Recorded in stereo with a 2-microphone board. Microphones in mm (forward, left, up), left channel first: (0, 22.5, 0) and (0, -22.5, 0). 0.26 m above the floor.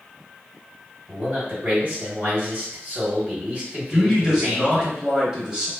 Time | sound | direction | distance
1.1 | a man speaking | 40° right (ahead or behind) | 1.6 m
3.9 | a man speaking | 15° right (ahead or behind) | 1.0 m